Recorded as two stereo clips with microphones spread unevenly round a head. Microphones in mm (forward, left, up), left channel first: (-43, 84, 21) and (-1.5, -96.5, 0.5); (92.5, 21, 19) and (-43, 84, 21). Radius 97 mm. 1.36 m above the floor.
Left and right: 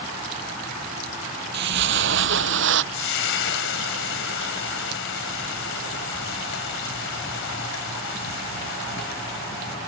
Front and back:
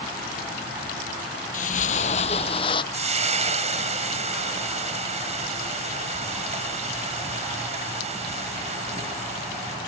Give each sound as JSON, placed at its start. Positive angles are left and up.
{"t": 1.5, "sound": "footsteps", "azimuth_deg": -55}
{"t": 2.9, "sound": "frying", "azimuth_deg": 115}